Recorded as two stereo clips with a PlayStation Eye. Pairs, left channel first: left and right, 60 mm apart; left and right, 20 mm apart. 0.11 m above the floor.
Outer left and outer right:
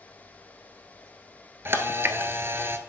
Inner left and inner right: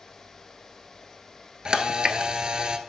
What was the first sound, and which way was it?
A camera shutter, 45° right (ahead or behind).